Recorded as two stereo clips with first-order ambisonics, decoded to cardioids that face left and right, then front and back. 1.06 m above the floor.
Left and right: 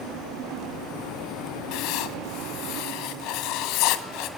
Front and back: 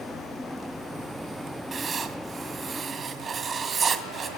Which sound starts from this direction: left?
Writing, at 1.7 s.